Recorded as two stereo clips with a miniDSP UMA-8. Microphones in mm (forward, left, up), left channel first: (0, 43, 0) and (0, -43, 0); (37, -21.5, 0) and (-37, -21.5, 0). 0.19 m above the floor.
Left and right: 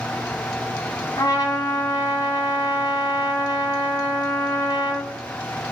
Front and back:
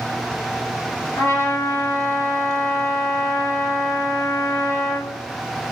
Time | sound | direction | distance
1.2 | a trumpet | 50° left | 0.9 m